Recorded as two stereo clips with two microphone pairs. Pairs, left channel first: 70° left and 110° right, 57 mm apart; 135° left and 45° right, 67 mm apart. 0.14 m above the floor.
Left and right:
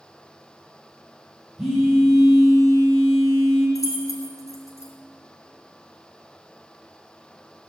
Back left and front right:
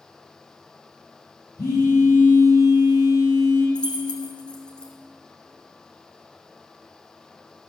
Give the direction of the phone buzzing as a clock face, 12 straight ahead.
7 o'clock.